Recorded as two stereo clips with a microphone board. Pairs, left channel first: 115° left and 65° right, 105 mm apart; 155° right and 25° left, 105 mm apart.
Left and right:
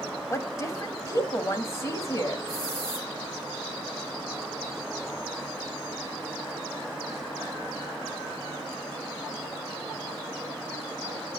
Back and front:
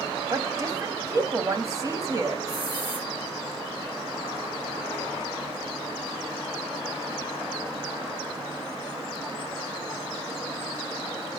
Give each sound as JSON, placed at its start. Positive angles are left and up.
{"t": 0.3, "sound": "a woman speaking", "azimuth_deg": 65, "distance_m": 1.6}
{"t": 2.5, "sound": "a hiss", "azimuth_deg": 60, "distance_m": 5.5}